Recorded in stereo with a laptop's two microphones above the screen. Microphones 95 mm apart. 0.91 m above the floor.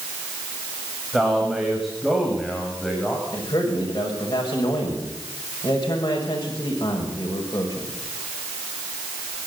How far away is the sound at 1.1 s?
About 6.5 m.